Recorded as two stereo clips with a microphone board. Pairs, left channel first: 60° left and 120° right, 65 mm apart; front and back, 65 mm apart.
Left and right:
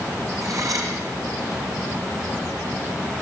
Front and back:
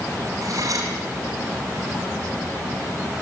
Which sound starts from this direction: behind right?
Cutlery clinking, at 0.4 s.